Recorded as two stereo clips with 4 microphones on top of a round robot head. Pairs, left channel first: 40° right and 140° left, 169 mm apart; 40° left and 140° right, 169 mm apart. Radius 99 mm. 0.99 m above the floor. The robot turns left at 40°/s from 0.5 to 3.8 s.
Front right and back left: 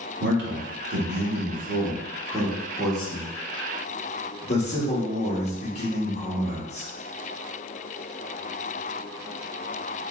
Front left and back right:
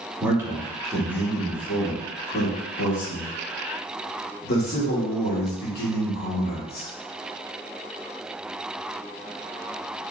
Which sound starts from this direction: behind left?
A man speaking, at 0.2 s.